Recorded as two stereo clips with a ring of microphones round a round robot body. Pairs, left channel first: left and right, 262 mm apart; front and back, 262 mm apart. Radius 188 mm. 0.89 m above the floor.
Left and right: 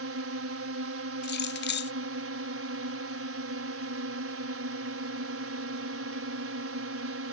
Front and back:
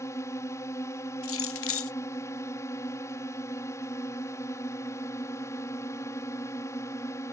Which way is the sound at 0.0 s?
80° right.